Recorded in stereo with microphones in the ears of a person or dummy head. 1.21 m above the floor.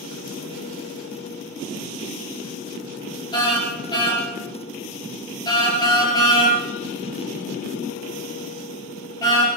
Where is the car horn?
25° left (ahead or behind), 7.5 m.